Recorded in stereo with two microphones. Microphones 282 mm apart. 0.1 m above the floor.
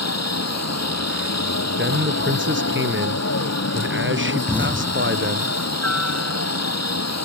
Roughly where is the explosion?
Centre.